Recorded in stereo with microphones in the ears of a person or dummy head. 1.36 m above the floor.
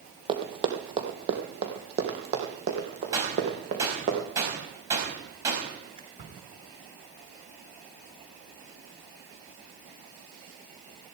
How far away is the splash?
About 3 m.